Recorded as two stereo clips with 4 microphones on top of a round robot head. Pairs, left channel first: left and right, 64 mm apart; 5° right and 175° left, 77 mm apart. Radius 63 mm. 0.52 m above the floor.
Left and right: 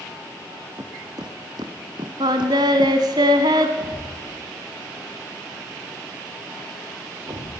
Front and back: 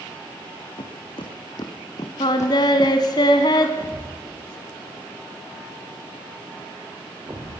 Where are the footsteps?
40° right, 2.5 m; by 3.0 s 80° right, 1.6 m.